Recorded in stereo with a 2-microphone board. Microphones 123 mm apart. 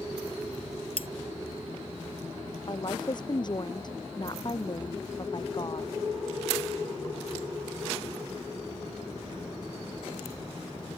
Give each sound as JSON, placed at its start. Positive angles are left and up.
{"t": 1.0, "sound": "cutlery clinking", "side_deg": 50}
{"t": 2.7, "sound": "a woman speaking", "side_deg": 40}